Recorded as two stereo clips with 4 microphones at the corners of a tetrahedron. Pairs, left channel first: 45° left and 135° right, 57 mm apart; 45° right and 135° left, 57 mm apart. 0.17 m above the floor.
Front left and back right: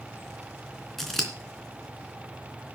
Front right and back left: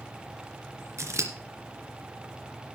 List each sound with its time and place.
1.0 s scissors: 130° left, 3 m